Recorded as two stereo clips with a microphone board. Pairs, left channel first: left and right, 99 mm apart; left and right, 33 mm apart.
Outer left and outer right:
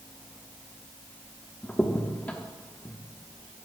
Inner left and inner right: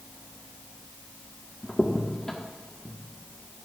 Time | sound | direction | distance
1.6 | a crack | 15° left (ahead or behind) | 1.2 m